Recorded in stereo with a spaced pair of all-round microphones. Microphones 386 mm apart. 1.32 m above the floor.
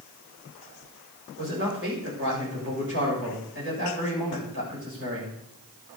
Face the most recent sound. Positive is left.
turn(degrees=-30)  # may be behind; listen again after turning